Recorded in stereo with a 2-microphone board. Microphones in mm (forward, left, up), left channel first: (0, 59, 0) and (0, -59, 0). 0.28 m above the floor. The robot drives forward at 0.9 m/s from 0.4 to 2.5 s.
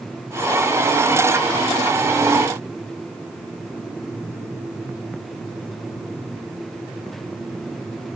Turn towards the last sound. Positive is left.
No sound to turn to.